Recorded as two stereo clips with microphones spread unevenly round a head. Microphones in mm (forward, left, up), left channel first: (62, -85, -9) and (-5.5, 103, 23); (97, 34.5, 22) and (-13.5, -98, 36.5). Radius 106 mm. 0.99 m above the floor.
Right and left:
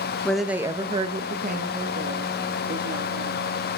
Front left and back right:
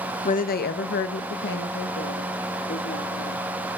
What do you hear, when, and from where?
0.2 s a woman speaking: 10° left, 0.7 m; by 3.4 s 75° left, 2 m